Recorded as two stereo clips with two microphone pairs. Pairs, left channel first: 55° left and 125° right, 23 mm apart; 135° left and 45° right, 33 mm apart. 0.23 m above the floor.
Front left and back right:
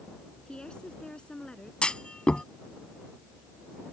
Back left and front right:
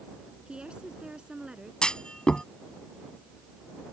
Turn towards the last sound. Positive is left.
turn(degrees=80)